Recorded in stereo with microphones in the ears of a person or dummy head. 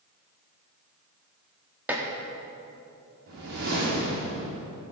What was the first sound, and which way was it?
Dishes clattering, 10° right (ahead or behind).